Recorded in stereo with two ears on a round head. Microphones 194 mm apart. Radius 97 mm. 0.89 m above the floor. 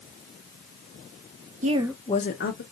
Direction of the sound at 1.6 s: 35° right (ahead or behind).